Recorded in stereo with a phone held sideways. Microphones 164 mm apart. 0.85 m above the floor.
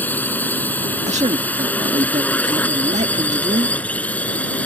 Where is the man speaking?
45° right (ahead or behind).